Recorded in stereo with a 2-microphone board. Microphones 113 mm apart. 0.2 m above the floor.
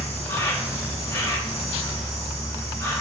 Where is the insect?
25° left (ahead or behind), 0.9 m.